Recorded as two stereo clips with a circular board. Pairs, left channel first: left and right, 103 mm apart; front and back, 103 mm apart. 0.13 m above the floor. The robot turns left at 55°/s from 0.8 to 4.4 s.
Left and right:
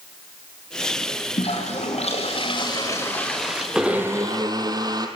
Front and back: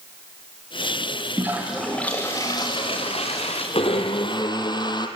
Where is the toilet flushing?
115° left, 5.5 m; by 3.6 s 10° right, 5.5 m.